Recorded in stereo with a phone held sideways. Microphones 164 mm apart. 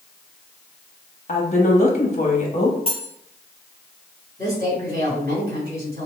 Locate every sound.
1.3 s a woman speaking: 45° left (ahead or behind), 1.1 m
2.9 s cutlery clinking: 35° left (ahead or behind), 1.0 m
4.4 s a woman speaking: 65° right (ahead or behind), 2 m